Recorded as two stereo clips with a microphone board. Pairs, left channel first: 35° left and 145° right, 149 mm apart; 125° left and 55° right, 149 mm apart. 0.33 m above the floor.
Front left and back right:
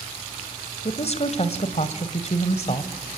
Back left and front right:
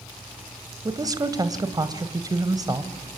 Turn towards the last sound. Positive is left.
turn(degrees=5)